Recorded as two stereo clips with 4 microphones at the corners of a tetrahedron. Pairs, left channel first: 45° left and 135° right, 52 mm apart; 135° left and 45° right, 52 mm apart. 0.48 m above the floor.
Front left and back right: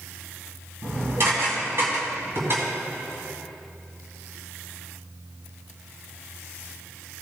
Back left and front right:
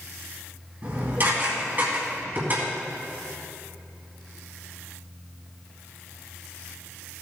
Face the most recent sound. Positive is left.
turn(degrees=-95)